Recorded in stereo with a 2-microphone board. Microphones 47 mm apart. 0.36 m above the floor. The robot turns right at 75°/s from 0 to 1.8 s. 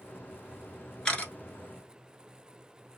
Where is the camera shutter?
15° left (ahead or behind), 1.0 m; by 1.3 s 40° left (ahead or behind), 1.0 m.